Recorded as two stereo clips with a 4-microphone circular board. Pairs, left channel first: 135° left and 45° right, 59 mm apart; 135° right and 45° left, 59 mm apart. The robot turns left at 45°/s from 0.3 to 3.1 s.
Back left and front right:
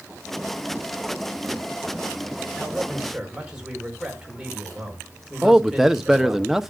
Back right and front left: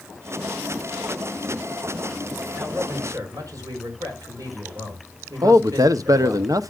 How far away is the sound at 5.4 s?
About 0.8 m.